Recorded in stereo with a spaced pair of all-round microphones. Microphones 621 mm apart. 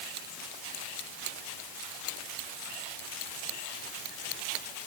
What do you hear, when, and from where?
Only background noise.